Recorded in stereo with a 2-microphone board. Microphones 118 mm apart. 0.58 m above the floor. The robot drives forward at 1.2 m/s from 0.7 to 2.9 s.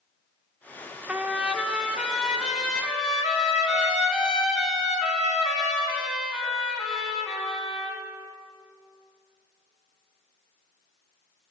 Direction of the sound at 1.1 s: 10° right (ahead or behind).